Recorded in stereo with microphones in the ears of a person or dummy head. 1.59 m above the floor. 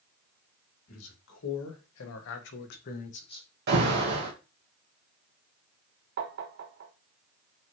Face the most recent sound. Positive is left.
turn(degrees=-55)  # may be behind; listen again after turning